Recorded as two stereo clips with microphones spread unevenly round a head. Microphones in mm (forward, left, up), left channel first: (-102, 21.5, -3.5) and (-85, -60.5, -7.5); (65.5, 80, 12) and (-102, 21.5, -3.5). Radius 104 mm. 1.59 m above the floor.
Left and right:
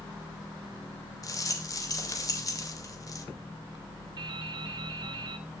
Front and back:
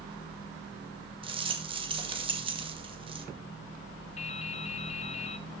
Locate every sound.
1.2 s a rattle: 140° left, 2.5 m
4.2 s dripping: 35° right, 0.6 m